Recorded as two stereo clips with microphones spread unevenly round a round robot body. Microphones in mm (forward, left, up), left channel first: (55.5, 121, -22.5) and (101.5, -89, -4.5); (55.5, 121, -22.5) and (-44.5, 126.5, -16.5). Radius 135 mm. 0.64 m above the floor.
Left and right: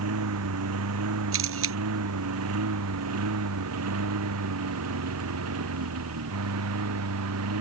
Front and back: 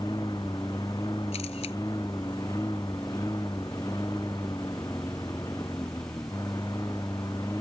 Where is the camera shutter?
60° right.